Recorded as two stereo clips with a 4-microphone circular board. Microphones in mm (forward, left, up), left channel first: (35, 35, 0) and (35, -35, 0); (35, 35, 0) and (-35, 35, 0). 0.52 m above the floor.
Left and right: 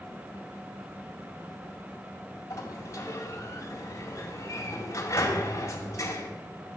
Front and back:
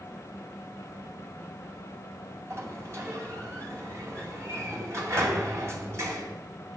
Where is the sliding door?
135° left, 2 m.